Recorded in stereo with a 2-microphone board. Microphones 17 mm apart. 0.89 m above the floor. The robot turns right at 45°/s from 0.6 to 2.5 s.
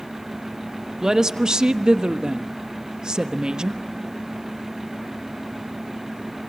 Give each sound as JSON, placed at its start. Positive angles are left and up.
{"t": 1.0, "sound": "a woman speaking", "azimuth_deg": -135, "distance_m": 1.0}